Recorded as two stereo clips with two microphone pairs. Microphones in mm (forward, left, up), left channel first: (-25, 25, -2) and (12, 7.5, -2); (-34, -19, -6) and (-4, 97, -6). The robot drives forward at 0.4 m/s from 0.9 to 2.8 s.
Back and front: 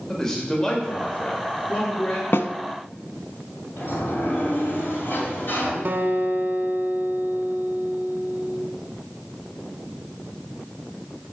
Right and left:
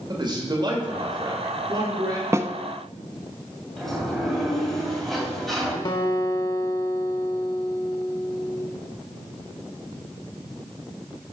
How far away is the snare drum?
About 0.6 m.